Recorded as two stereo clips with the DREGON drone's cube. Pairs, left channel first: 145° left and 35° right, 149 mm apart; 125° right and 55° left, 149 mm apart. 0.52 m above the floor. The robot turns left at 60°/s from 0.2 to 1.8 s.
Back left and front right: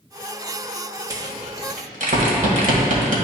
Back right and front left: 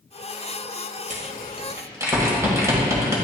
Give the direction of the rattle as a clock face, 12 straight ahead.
11 o'clock.